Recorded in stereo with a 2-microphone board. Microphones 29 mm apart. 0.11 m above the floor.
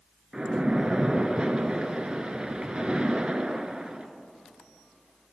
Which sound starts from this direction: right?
A splash, at 0.3 s.